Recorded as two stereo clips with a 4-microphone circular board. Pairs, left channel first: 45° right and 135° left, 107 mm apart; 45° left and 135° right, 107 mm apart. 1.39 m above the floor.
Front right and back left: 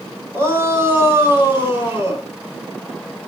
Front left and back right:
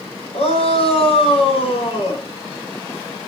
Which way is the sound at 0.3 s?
70° left.